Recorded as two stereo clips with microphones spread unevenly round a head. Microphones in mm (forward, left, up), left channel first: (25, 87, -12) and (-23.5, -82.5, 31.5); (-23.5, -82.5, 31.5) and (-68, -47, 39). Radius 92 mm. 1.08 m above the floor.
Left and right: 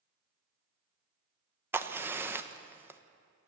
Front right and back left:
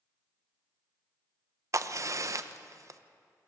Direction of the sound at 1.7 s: 170° left.